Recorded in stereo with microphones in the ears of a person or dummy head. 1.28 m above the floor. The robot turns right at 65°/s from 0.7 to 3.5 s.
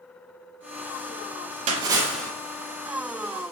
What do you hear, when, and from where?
1.7 s a splash: 30° right, 0.7 m; by 2.3 s 10° left, 0.7 m